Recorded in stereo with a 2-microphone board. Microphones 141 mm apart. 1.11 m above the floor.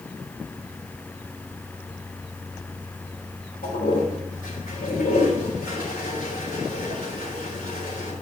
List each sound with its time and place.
3.6 s a toilet flushing: 85° left, 3.5 m